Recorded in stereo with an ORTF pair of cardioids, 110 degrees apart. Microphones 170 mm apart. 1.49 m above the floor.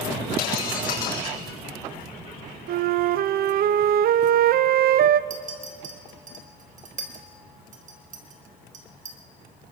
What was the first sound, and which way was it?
Breaking glass, 60° left.